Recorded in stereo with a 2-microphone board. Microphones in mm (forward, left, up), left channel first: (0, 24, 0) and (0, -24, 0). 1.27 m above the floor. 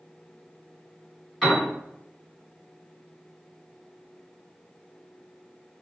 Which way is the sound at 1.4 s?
5° left (ahead or behind).